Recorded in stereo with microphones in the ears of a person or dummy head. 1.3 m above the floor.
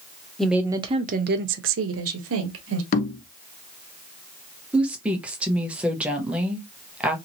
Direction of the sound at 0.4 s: Centre (ahead or behind).